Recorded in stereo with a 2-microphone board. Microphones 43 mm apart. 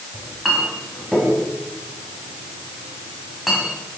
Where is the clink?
Centre (ahead or behind), 4 m.